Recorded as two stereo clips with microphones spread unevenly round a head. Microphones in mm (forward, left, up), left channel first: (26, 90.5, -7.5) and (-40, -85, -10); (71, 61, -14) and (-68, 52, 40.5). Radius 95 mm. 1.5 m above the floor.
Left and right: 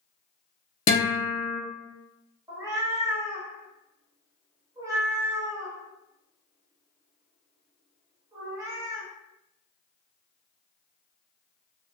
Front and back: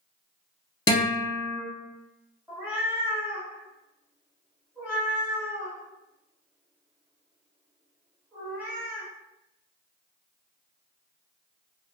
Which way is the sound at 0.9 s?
80° left.